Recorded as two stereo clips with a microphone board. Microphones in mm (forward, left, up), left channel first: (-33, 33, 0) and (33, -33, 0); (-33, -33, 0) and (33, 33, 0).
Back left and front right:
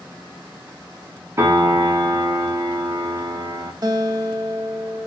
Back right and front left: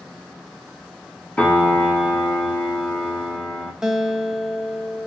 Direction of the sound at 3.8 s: 35° right.